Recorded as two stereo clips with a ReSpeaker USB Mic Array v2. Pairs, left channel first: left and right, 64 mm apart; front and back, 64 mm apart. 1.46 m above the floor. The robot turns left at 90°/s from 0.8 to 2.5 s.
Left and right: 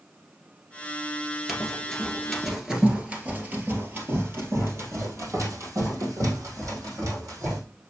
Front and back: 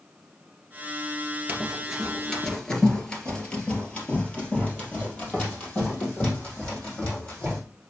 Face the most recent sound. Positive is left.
turn(degrees=-65)